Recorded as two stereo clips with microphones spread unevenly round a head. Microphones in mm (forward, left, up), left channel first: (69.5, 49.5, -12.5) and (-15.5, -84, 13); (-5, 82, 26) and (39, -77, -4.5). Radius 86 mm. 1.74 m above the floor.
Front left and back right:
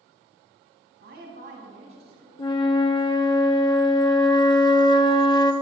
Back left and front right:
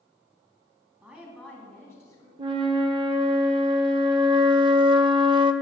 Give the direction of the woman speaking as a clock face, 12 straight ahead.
5 o'clock.